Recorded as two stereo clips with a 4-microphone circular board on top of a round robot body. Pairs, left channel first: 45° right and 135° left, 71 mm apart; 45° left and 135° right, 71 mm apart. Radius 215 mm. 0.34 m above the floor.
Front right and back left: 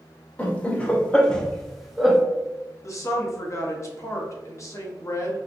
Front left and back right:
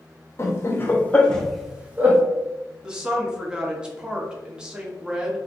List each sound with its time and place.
0.4 s laughter: 20° left, 1.2 m; by 2.2 s 140° right, 1.0 m
2.8 s a woman speaking: 60° right, 1.1 m